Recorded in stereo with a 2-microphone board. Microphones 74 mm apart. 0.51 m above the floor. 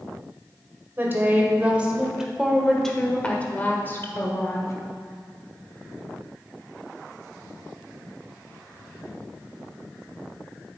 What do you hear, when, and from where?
1.0 s a woman speaking: 30° right (ahead or behind), 1.7 m; by 4.7 s 45° left (ahead or behind), 1.6 m